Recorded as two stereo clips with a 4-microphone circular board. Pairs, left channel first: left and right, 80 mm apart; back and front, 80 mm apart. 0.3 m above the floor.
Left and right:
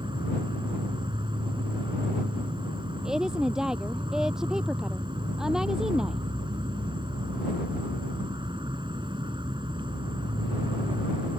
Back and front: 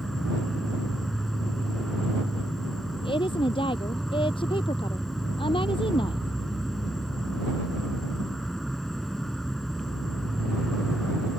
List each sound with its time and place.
0.0 s an insect: 95° right
3.0 s a woman speaking: 175° right